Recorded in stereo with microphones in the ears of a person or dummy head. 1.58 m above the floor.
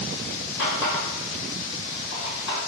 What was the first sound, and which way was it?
A running tap, 65° left (ahead or behind).